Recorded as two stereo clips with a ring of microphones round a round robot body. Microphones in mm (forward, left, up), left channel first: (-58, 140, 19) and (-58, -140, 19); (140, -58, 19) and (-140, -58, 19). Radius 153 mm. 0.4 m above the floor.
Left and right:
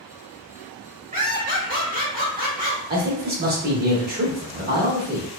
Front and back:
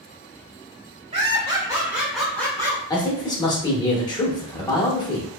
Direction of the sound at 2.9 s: 65° right.